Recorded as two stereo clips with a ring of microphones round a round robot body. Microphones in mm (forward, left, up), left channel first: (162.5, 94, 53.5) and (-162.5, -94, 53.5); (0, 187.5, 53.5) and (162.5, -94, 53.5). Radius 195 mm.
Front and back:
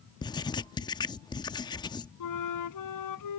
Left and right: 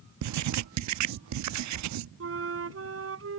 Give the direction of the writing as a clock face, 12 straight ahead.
2 o'clock.